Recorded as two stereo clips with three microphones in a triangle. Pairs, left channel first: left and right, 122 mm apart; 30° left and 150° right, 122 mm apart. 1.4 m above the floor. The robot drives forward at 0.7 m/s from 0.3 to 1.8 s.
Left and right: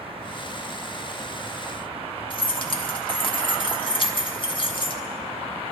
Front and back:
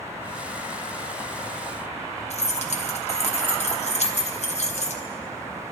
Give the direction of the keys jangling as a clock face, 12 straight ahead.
10 o'clock.